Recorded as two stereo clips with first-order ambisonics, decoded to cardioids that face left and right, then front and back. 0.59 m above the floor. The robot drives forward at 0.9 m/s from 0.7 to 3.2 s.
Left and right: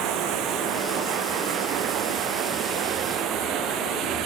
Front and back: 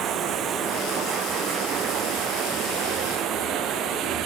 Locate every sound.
0.0 s running water: 130° right; by 4.3 s 135° right